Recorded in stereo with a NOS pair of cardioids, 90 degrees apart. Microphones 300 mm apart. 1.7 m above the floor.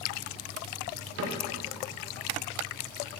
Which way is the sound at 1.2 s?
45° right.